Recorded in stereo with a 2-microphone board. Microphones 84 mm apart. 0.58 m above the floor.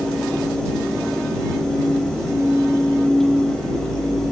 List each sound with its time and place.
Only background noise.